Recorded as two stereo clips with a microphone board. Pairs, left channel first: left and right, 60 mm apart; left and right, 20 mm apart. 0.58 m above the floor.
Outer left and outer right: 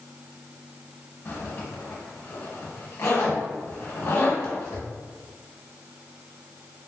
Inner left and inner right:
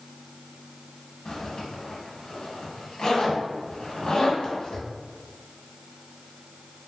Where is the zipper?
50° left (ahead or behind), 0.9 m.